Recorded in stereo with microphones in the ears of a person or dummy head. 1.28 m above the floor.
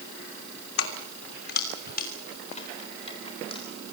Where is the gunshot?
No gunshot in this recording.